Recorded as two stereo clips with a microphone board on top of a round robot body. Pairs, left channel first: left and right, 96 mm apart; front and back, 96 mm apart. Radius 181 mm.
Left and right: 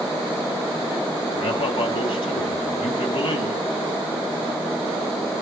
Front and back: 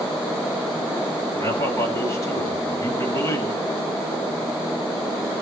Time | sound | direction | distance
1.4 | a man speaking | 60° left | 6.5 m